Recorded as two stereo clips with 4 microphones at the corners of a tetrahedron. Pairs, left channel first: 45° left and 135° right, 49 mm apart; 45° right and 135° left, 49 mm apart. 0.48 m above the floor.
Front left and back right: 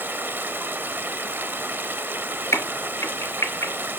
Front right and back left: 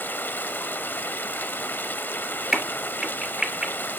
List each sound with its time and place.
0.0 s running water: 90° right, 1.0 m
2.5 s a crack: 55° left, 3 m